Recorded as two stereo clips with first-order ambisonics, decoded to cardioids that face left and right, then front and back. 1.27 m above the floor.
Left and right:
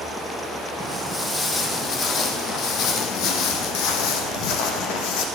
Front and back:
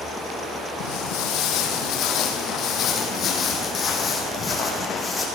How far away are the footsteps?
About 2.5 m.